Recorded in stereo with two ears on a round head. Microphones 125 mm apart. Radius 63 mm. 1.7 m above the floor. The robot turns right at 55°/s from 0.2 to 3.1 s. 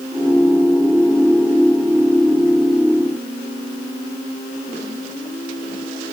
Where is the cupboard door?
No cupboard door in this recording.